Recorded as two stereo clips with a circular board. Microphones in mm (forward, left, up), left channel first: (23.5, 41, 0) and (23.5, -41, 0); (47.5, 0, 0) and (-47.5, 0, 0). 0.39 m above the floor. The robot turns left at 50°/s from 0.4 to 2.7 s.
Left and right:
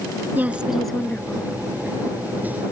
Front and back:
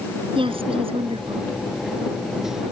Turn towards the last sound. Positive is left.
turn(degrees=85)